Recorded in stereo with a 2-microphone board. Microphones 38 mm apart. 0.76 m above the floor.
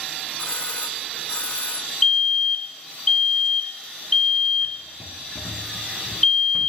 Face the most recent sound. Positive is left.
turn(degrees=10)  # may be behind; listen again after turning